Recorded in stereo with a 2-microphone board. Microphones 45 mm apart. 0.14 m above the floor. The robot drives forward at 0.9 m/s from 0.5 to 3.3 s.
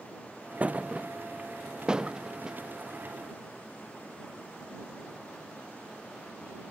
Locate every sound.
0.6 s a thud: 35° right (ahead or behind); by 2.6 s 15° right (ahead or behind)